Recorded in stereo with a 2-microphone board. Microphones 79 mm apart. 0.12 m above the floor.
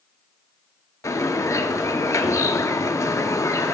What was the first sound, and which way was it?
A bird, 45° left (ahead or behind).